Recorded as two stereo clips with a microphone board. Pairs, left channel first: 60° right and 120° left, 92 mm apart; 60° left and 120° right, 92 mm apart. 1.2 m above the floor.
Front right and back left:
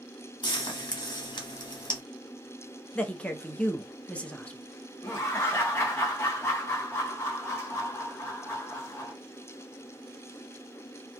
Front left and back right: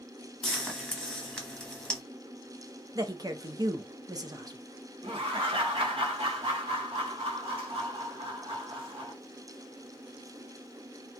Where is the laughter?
125° right, 1.2 m.